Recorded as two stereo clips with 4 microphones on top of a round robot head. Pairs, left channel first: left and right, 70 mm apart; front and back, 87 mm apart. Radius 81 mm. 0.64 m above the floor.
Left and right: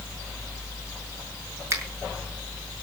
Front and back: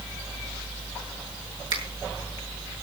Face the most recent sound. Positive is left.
turn(degrees=-140)